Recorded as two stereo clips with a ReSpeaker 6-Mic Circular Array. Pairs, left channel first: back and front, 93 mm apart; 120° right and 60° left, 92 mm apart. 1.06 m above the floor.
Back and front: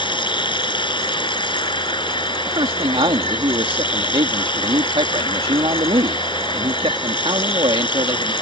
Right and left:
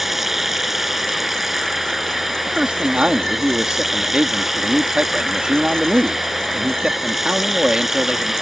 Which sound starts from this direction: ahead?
A man speaking, at 2.5 s.